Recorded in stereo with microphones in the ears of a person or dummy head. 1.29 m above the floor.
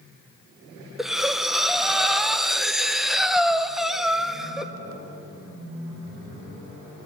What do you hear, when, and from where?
1.0 s breathing: 5° right (ahead or behind), 0.8 m